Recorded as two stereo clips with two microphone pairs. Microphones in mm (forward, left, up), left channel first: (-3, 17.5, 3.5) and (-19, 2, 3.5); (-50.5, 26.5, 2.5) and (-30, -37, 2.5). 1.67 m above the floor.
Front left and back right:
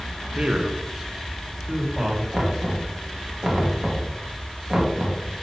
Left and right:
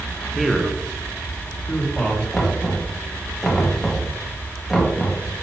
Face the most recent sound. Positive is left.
turn(degrees=-170)